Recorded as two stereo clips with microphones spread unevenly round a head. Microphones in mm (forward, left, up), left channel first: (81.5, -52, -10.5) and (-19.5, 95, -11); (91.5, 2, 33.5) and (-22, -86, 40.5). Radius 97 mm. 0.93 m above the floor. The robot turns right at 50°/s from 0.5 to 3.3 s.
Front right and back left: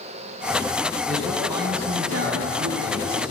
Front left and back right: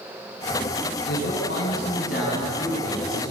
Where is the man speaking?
30° left, 7 m; by 3.3 s 140° left, 7 m.